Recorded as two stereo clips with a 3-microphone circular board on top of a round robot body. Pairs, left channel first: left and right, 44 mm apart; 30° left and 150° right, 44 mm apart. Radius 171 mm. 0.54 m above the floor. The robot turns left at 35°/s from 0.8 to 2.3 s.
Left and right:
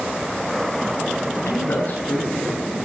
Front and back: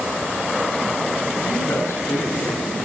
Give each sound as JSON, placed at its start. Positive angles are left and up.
{"t": 1.4, "sound": "a man speaking", "azimuth_deg": 50, "distance_m": 8.5}